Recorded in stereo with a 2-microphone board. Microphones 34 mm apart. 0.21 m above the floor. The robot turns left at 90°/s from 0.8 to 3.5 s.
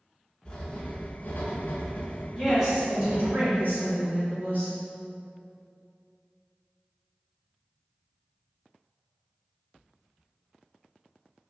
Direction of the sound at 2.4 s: 30° left.